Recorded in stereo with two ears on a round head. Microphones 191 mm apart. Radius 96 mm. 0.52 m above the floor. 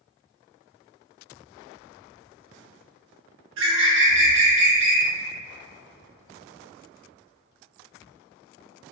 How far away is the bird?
About 0.7 m.